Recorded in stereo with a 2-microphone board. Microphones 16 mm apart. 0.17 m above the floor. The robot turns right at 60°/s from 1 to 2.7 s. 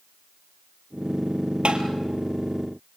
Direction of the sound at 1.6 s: 70° right (ahead or behind).